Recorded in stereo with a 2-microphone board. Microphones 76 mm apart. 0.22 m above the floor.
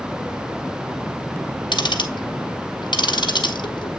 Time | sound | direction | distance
1.7 | ticking | 90° left | 1.2 m